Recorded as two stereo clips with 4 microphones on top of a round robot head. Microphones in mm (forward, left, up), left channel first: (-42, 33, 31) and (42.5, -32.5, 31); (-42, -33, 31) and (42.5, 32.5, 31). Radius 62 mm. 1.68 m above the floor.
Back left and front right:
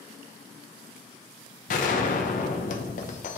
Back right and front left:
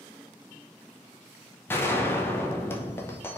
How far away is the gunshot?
About 0.6 m.